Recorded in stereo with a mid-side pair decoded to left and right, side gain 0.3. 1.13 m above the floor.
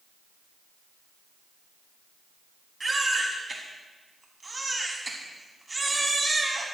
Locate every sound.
2.8 s a baby crying: 30° right, 5.5 m